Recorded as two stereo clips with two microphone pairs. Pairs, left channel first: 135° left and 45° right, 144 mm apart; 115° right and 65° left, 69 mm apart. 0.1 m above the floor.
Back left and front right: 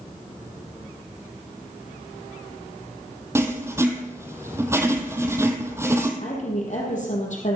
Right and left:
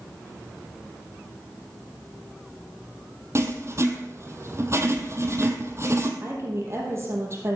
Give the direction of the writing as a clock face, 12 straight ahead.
11 o'clock.